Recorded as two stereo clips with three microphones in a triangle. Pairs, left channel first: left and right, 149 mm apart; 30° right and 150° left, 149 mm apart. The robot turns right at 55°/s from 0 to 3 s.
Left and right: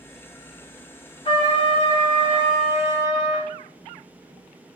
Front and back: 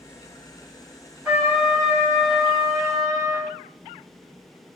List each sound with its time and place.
1.2 s a trumpet: 90° left, 1.4 m; by 3.5 s 175° right, 1.4 m